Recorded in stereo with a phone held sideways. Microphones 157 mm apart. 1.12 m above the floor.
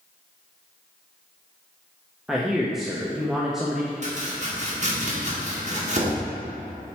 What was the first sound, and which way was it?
A man speaking, centre (ahead or behind).